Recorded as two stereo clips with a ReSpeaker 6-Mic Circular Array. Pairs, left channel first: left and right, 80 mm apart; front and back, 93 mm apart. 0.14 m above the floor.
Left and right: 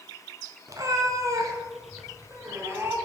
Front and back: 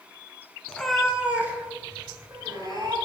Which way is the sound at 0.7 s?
75° right.